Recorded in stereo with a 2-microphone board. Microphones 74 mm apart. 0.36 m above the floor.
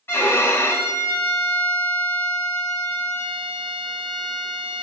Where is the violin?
35° left (ahead or behind), 0.5 m.